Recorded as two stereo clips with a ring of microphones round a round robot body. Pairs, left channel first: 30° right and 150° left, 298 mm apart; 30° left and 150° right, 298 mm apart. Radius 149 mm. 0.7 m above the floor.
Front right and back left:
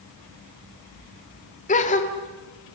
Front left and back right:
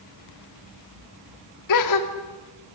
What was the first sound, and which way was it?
A gasp, 35° left.